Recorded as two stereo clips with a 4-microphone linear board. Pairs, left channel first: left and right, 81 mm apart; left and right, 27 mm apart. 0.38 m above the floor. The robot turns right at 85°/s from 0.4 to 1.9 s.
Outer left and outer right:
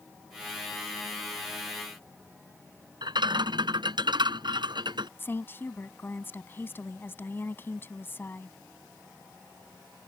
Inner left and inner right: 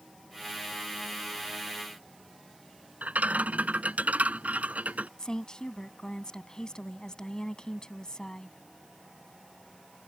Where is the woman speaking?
30° left (ahead or behind).